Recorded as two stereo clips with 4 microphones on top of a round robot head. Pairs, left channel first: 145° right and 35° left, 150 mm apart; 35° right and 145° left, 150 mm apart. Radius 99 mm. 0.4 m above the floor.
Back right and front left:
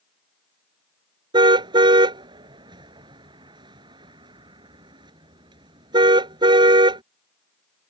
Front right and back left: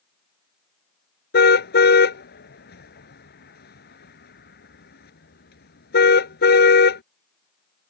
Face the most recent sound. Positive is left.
turn(degrees=-25)